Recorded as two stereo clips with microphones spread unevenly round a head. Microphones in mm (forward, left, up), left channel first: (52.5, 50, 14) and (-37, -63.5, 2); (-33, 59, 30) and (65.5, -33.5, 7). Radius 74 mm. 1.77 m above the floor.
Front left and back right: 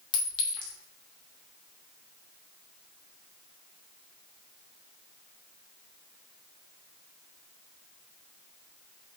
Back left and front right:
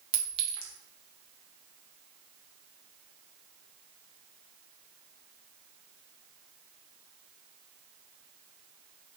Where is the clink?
5° left, 1.0 m.